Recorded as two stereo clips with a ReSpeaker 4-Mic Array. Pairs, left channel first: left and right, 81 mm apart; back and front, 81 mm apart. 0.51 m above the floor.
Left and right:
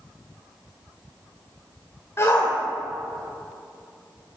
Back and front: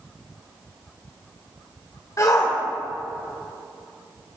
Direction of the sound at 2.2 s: 140° left.